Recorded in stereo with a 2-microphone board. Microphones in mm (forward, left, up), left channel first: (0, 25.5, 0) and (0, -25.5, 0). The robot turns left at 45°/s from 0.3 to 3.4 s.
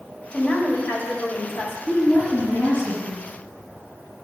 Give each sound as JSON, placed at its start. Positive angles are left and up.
{"t": 0.3, "sound": "a woman speaking", "azimuth_deg": 140, "distance_m": 1.6}
{"t": 1.9, "sound": "a woman speaking", "azimuth_deg": 105, "distance_m": 2.0}